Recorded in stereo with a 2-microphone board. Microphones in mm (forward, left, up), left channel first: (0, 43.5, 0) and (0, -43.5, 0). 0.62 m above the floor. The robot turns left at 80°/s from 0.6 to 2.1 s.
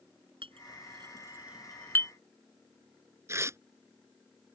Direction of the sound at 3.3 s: 30° right (ahead or behind).